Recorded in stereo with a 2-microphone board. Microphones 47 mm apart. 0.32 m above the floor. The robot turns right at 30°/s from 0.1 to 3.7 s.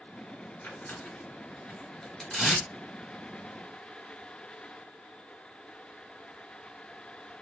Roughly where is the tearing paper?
Left.